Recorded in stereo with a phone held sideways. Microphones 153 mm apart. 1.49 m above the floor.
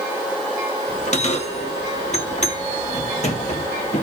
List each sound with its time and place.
0.9 s a bell: 45° left (ahead or behind), 1.3 m